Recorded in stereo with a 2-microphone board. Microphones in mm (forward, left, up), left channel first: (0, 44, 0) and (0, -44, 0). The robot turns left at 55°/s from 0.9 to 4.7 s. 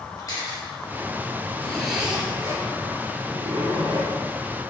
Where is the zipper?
15° left, 3 m; by 4.1 s 125° right, 3 m.